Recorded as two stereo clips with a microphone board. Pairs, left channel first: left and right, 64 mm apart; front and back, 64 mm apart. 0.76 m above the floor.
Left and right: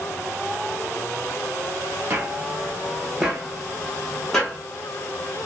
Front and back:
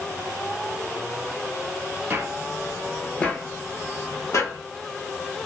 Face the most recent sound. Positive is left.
turn(degrees=15)